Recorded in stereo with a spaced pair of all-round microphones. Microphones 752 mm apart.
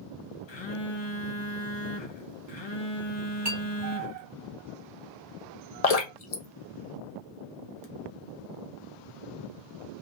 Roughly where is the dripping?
Left.